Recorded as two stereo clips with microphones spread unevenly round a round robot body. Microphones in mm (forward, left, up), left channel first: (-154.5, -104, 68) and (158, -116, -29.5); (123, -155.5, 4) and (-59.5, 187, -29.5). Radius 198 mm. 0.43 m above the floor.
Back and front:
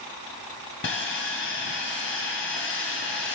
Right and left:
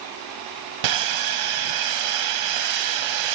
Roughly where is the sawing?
Behind left.